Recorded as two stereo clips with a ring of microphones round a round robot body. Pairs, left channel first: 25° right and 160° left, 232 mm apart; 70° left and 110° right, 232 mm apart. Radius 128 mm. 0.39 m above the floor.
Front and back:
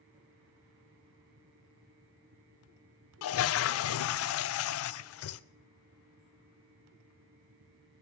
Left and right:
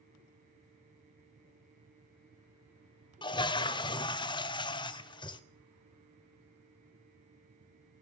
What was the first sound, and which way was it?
A toilet flushing, 5° right.